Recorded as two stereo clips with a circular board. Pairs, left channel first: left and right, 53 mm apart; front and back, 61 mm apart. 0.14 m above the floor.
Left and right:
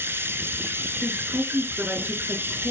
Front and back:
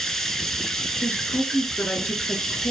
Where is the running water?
85° right, 1.1 m.